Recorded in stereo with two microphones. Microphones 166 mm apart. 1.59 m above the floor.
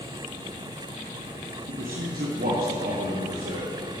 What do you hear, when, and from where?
1.7 s a man speaking: 60° right (ahead or behind), 0.9 m; by 3.7 s 70° right (ahead or behind), 2.5 m